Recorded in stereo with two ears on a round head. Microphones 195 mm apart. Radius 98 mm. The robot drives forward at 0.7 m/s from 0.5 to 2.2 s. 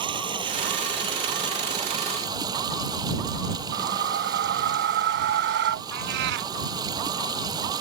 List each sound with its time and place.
0.0 s running water: 25° right (ahead or behind); by 7.8 s 20° right (ahead or behind)
3.7 s a whoosh: 55° right (ahead or behind)
5.9 s a cat meowing: 50° right (ahead or behind)